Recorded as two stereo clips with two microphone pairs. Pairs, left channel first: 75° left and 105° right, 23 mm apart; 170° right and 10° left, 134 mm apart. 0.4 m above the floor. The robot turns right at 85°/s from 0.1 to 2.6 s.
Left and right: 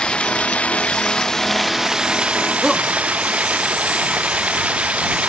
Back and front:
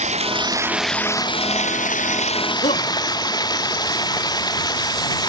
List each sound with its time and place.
0.0 s running water: 35° left; by 5.3 s 110° right
2.6 s a shout: 170° left